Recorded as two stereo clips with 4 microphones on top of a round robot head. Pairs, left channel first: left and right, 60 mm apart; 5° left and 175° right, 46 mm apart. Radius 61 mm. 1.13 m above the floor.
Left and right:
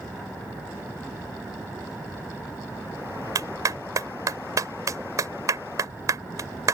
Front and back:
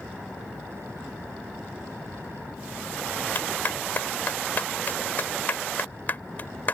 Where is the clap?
55° right.